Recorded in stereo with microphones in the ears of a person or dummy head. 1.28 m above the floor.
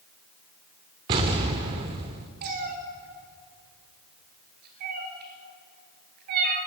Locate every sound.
1.1 s an explosion: 25° right (ahead or behind), 1.0 m
2.4 s a cat meowing: 45° right (ahead or behind), 1.9 m